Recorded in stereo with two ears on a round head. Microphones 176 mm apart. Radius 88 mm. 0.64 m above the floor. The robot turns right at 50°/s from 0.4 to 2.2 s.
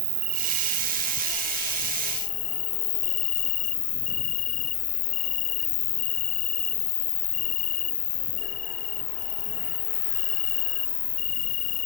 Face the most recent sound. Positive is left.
turn(degrees=45)